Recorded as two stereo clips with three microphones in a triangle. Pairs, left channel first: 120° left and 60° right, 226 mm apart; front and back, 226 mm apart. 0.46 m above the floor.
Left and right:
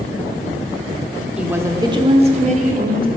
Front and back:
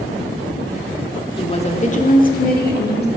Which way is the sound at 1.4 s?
15° left.